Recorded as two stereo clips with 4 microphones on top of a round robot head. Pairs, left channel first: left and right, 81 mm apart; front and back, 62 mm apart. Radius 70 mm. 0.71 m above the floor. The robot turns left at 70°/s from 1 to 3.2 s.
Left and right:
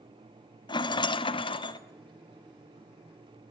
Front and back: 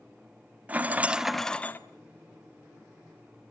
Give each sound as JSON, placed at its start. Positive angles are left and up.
{"t": 0.7, "sound": "a rattle", "azimuth_deg": 110, "distance_m": 1.7}